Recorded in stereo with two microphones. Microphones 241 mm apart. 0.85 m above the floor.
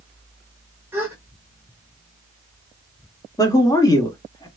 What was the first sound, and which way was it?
A gasp, 10° right (ahead or behind).